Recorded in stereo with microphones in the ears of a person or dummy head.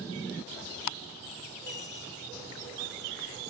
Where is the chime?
60° left (ahead or behind), 2.5 m.